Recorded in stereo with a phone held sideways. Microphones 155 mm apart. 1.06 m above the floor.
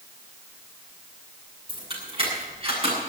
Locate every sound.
1.7 s keys jangling: 35° right (ahead or behind), 9 m; by 3.0 s 40° right (ahead or behind), 8 m